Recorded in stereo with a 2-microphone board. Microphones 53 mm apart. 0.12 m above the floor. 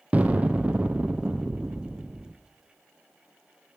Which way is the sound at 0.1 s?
25° right (ahead or behind).